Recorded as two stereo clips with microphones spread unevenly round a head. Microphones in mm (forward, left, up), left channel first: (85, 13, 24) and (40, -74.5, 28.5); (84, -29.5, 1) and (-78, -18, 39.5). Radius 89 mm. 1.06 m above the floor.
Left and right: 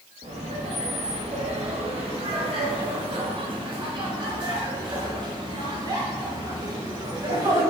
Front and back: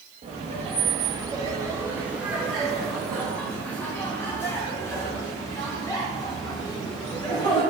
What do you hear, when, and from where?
0.2 s laughter: 135° right, 1.5 m; by 7.6 s 70° right, 5 m